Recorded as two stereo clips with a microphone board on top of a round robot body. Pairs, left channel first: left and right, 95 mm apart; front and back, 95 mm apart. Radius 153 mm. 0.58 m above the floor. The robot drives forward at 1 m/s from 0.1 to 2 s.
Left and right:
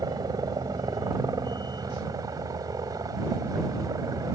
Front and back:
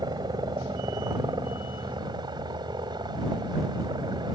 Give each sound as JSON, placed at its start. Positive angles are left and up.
{"t": 0.0, "sound": "a helicopter", "azimuth_deg": -135}